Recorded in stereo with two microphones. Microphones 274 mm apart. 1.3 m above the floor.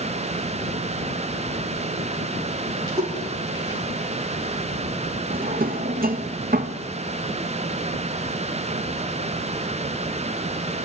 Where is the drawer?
30° right (ahead or behind), 0.9 m.